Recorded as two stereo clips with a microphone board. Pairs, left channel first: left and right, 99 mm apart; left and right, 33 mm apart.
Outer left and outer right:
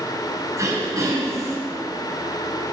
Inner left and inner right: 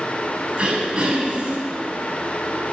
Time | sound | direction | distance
0.6 | throat clearing | 30° right (ahead or behind) | 6 m